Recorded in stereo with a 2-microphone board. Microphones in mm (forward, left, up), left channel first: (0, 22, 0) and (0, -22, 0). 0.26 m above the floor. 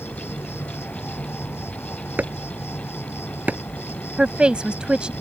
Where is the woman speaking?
25° right (ahead or behind).